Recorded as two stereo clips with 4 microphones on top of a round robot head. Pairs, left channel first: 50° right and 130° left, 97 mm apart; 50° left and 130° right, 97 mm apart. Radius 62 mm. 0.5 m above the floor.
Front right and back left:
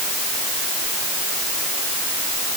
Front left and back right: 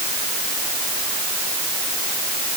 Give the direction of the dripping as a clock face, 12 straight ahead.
No dripping in this recording.